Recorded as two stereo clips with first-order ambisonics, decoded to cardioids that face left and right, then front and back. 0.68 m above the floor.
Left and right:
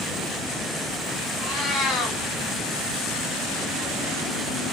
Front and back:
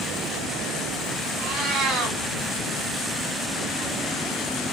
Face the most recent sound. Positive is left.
turn(degrees=155)